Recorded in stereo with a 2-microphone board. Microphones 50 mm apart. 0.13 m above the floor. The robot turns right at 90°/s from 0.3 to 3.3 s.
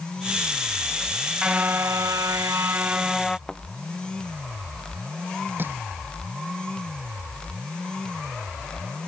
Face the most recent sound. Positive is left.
turn(degrees=-40)  # may be behind; listen again after turning